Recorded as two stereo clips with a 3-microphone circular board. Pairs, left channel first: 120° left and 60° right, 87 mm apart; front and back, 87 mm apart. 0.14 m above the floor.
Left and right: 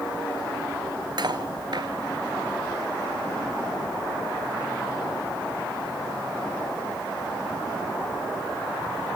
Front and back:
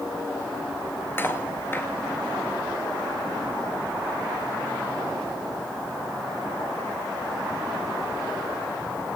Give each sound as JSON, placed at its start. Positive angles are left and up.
{"t": 1.2, "sound": "cutlery clinking", "azimuth_deg": -60, "distance_m": 1.4}